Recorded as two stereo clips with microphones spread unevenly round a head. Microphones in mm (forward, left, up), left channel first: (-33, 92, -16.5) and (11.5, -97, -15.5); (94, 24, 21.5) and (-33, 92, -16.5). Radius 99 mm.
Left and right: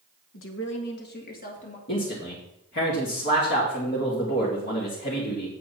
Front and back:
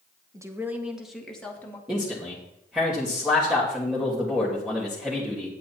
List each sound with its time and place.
0.3 s a woman speaking: 80° left, 1.7 m; by 1.8 s 45° left, 2.5 m
1.9 s a man speaking: 65° left, 2.5 m